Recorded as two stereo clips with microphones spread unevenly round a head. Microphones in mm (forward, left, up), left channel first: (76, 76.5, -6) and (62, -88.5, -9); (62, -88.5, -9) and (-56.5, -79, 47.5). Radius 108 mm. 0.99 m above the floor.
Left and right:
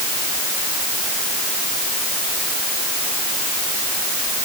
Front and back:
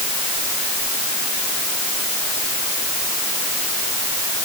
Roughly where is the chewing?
I don't hear chewing.